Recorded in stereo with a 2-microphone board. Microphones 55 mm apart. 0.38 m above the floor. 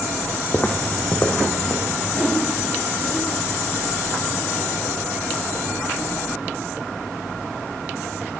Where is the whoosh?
15° right (ahead or behind), 1.5 m.